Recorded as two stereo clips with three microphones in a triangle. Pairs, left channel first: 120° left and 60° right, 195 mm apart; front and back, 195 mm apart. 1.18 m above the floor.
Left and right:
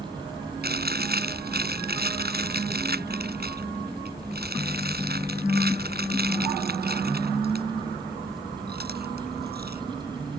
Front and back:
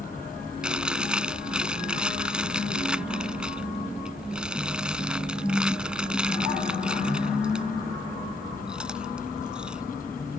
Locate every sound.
0.6 s chewing: 95° right